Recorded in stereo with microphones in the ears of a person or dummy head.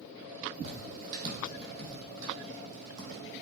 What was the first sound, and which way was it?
Footsteps, 40° right (ahead or behind).